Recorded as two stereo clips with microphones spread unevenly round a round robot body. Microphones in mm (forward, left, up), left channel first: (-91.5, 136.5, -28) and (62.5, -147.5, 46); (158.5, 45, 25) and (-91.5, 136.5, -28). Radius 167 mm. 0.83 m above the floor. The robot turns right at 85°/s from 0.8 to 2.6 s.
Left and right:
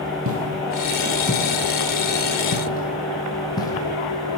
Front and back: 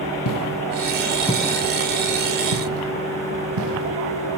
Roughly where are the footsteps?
Ahead.